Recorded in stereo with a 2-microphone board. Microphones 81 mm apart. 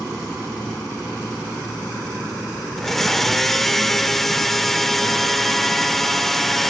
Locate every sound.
2.8 s a blender: 5° left (ahead or behind), 1.0 m